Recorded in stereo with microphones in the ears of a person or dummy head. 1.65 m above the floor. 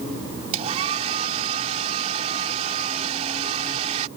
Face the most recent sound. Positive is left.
turn(degrees=-35)  # may be behind; listen again after turning